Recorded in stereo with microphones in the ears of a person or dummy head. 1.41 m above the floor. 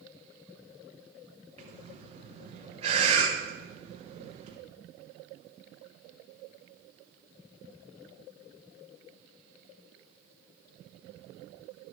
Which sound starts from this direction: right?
Breathing, at 1.6 s.